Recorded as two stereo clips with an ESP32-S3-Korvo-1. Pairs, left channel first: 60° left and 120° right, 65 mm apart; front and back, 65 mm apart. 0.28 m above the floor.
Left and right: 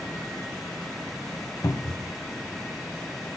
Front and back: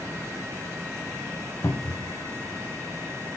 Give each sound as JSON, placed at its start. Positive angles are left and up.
{"t": 1.6, "sound": "a cupboard door", "azimuth_deg": 35, "distance_m": 0.6}